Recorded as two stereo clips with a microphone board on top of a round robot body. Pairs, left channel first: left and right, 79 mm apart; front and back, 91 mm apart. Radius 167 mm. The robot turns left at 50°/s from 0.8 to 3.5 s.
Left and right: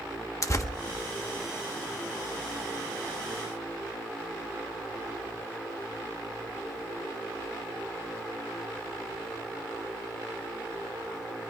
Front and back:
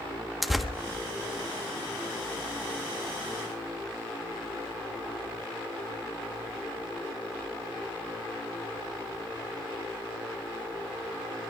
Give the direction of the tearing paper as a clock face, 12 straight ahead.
9 o'clock.